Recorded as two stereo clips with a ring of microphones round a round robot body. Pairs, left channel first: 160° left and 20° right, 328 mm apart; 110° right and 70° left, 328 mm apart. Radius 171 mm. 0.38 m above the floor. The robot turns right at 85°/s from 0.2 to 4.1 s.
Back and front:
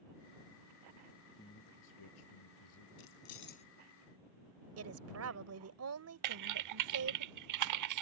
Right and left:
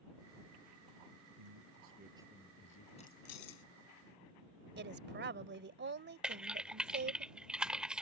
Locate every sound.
1.4 s a man speaking: 80° left; by 2.9 s 155° right
3.0 s keys jangling: 175° left; by 3.6 s 130° right
4.8 s a woman speaking: 15° left
6.2 s typing on a keyboard: 20° right